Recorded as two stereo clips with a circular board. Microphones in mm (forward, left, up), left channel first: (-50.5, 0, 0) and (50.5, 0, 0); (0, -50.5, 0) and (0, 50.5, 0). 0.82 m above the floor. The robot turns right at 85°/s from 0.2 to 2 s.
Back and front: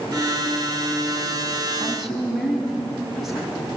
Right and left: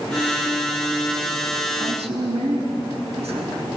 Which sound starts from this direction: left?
A woman speaking, at 1.8 s.